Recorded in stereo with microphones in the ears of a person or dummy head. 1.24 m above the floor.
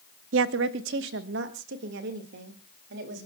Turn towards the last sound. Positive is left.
turn(degrees=-55)  # may be behind; listen again after turning